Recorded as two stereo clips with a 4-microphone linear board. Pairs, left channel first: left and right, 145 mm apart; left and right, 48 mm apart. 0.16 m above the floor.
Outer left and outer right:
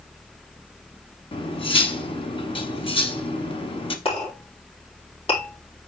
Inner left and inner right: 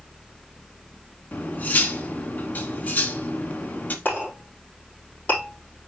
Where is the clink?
40° left (ahead or behind), 4 m.